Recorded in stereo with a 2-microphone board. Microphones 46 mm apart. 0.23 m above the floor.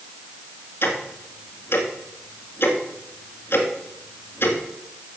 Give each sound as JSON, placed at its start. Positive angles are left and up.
{"t": 0.8, "sound": "ticking", "side_deg": 60, "distance_m": 1.7}